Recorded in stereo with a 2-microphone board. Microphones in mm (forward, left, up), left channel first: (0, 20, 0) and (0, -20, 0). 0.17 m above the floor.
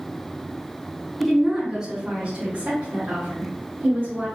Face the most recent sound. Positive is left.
turn(degrees=-60)  # may be behind; listen again after turning